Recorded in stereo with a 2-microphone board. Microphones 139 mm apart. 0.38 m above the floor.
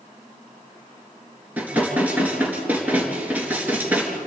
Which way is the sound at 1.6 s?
10° right (ahead or behind).